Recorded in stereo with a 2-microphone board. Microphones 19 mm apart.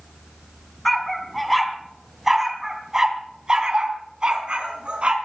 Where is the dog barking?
10° left (ahead or behind), 3.5 m; by 5.2 s 60° right (ahead or behind), 4 m.